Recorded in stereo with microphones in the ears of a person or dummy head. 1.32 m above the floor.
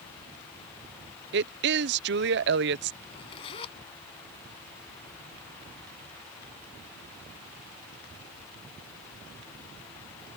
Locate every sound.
1.3 s a woman speaking: 55° right (ahead or behind)
3.0 s a zipper: 30° left (ahead or behind)